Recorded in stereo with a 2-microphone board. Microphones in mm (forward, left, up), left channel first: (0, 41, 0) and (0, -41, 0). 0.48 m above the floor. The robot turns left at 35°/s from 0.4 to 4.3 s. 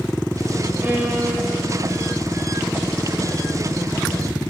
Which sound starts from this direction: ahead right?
A violin, at 0.8 s.